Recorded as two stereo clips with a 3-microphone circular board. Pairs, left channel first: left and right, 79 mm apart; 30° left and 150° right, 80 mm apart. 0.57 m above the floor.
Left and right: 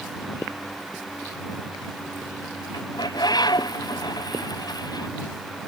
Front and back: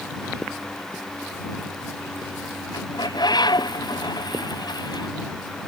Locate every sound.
2.7 s a bird: 60° left